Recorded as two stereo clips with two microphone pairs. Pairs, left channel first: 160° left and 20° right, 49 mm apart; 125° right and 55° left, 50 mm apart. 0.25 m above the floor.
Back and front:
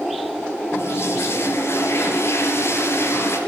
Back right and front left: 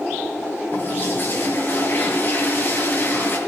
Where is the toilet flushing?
170° right, 6.5 m.